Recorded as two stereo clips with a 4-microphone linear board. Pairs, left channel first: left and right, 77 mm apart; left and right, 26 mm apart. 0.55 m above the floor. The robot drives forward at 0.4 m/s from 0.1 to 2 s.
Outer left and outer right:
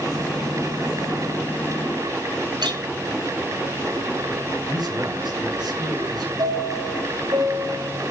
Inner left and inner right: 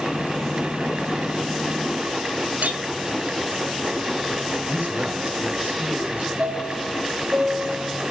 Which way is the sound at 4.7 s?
70° right (ahead or behind).